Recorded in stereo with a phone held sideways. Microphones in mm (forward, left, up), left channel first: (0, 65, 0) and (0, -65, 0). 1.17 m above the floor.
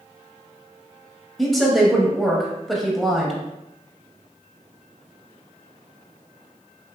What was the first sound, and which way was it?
A woman speaking, centre (ahead or behind).